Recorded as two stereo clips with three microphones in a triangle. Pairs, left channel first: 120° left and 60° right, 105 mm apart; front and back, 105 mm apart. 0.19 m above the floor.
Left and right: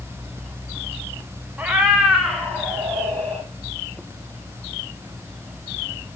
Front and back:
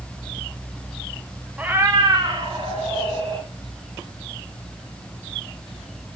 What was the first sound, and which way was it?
A cat meowing, 115° right.